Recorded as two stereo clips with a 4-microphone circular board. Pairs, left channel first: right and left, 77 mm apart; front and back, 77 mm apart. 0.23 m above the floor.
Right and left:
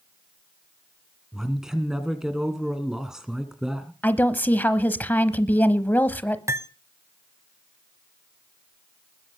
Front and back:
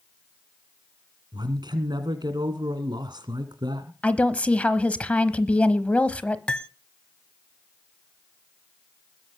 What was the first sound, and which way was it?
A man speaking, 170° left.